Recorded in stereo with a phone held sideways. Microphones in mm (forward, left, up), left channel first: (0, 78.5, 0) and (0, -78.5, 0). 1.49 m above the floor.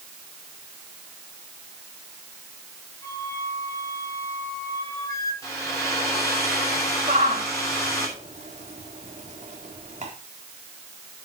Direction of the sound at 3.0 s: 20° left (ahead or behind).